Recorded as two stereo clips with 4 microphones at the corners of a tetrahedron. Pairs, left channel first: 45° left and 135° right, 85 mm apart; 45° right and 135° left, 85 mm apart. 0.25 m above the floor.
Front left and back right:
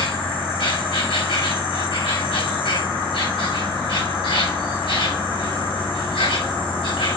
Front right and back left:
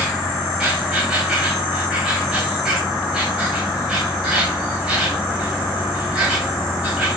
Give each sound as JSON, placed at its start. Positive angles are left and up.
{"t": 0.0, "sound": "an insect", "azimuth_deg": 50, "distance_m": 5.5}